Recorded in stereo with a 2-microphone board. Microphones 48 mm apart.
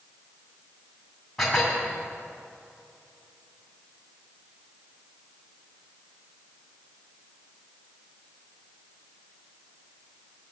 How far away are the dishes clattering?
About 2.5 m.